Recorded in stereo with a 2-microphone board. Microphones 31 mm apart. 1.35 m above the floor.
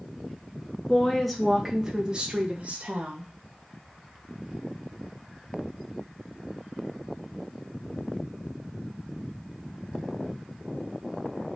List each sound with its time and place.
0.9 s a woman speaking: 10° left (ahead or behind), 1.4 m; by 3.3 s 65° right (ahead or behind), 1.5 m